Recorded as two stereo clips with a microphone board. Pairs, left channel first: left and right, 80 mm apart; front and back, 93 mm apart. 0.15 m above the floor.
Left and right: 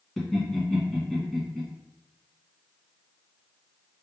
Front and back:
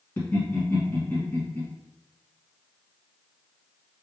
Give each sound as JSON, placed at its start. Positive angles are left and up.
{"t": 0.2, "sound": "laughter", "azimuth_deg": 5, "distance_m": 1.3}